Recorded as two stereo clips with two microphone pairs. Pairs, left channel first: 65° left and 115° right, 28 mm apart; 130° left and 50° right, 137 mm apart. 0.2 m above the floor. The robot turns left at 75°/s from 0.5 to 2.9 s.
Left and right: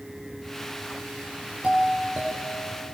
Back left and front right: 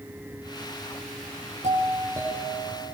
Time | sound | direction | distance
1.6 | a doorbell | 80° right | 7.5 m